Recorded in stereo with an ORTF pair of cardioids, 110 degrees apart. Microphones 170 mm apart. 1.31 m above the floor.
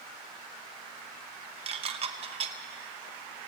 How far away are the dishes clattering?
About 0.9 m.